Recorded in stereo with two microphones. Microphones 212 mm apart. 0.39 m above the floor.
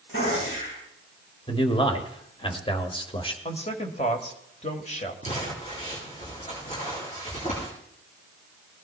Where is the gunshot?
75° left (ahead or behind), 7.5 m.